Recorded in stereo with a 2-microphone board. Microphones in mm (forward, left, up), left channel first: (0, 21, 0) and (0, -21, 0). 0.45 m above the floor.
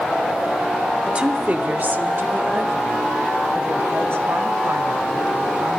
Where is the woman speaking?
20° right (ahead or behind), 1.0 m; by 5.8 s 75° right (ahead or behind), 4 m.